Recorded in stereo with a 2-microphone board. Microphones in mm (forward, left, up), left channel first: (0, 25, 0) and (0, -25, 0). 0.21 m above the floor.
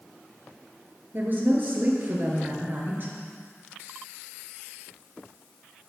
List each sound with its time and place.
1.1 s a woman speaking: 45° right (ahead or behind), 3 m